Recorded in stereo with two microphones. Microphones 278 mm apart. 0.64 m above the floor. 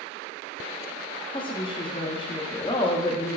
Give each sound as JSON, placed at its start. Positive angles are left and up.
{"t": 1.3, "sound": "a woman speaking", "side_deg": 20, "distance_m": 0.5}